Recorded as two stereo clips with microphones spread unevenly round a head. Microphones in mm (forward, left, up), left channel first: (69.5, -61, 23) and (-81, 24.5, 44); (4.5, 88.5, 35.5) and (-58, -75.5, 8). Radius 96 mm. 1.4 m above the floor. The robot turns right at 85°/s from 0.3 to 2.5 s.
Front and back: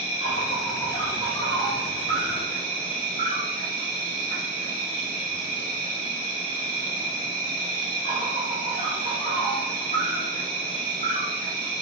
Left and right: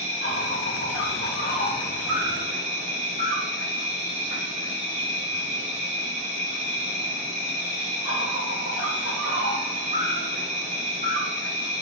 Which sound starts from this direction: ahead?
An insect, at 0.0 s.